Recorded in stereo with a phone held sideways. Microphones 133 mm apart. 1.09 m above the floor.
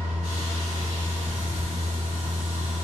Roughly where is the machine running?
Right.